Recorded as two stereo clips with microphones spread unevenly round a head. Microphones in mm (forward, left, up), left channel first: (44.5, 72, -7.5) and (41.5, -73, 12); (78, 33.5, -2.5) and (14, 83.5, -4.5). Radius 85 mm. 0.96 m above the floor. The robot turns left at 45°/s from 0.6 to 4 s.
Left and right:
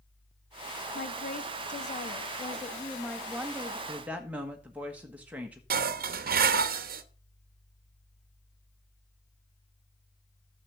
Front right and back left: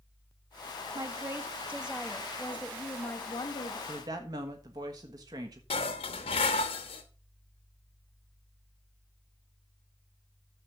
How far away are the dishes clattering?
About 0.9 m.